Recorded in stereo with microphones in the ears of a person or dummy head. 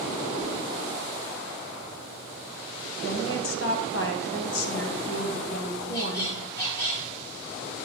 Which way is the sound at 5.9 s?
30° left (ahead or behind).